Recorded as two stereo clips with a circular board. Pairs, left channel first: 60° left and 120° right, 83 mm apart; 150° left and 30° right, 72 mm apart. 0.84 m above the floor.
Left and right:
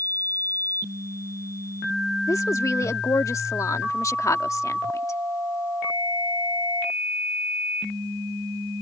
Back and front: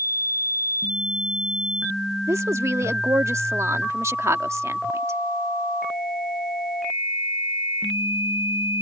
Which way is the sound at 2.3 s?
15° left.